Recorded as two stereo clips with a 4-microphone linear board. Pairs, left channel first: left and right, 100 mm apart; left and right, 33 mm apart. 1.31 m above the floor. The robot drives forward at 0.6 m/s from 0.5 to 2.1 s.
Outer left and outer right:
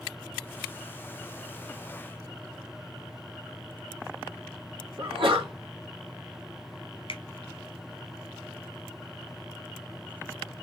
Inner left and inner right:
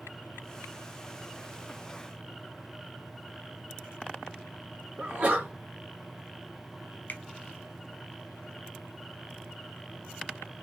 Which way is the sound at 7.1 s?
60° left (ahead or behind).